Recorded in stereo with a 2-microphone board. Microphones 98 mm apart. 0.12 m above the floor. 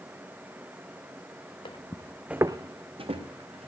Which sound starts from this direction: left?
Footsteps, at 1.6 s.